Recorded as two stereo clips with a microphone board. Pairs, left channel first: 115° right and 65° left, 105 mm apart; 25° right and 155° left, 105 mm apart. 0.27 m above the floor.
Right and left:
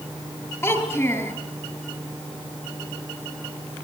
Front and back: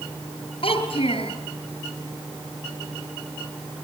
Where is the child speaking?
50° right, 3.5 m.